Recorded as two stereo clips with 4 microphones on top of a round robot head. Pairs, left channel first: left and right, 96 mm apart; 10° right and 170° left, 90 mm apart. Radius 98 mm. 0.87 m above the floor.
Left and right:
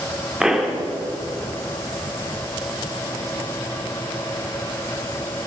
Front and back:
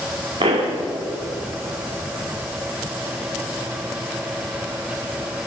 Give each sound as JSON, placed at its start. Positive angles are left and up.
{"t": 0.4, "sound": "a pop", "azimuth_deg": -175, "distance_m": 3.0}